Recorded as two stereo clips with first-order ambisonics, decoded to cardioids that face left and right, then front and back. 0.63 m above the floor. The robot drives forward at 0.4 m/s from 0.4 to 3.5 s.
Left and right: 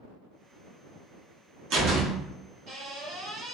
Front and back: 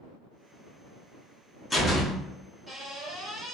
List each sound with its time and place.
1.7 s a door slam: 80° right, 0.9 m; by 3.5 s 135° right, 1.1 m